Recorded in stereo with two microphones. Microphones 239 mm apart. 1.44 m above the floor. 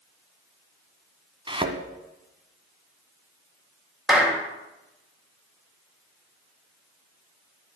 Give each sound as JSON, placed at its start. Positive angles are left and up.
{"t": 1.5, "sound": "a thud", "side_deg": -20, "distance_m": 1.4}
{"t": 4.1, "sound": "a clap", "side_deg": 0, "distance_m": 2.5}